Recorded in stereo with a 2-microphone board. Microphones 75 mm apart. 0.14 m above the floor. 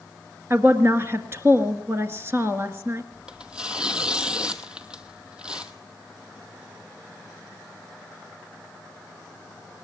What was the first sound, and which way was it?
A woman speaking, 35° right (ahead or behind).